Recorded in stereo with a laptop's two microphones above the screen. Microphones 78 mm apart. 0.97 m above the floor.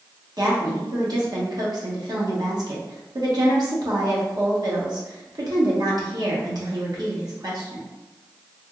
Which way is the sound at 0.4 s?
55° right (ahead or behind).